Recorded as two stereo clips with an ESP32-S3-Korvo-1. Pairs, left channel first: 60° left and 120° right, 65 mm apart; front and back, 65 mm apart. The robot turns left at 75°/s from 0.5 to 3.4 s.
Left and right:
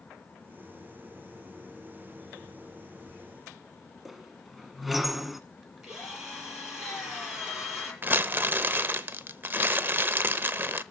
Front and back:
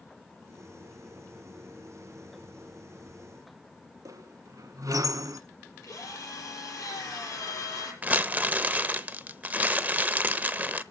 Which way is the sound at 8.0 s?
135° right.